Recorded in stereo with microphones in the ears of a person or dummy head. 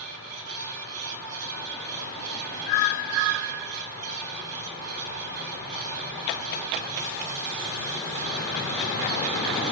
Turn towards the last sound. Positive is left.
turn(degrees=-85)